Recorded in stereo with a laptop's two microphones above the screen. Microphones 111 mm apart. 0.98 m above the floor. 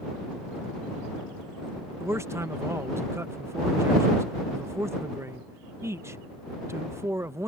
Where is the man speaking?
25° right (ahead or behind).